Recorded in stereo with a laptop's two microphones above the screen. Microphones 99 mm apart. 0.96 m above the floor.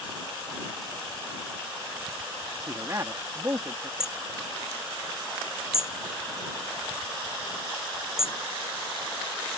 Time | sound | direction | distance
2.7 | a man speaking | 30° right (ahead or behind) | ?
4.0 | hammering | 5° right (ahead or behind) | ?